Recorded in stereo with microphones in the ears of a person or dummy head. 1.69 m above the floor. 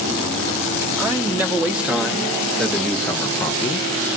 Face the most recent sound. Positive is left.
turn(degrees=25)  # may be behind; listen again after turning